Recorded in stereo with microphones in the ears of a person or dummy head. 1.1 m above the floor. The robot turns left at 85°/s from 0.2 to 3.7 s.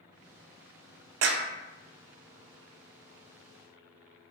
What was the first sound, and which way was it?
A clap, 70° right (ahead or behind).